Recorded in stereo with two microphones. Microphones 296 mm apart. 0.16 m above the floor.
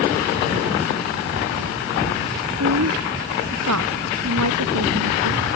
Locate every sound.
2.5 s a woman speaking: 70° right (ahead or behind)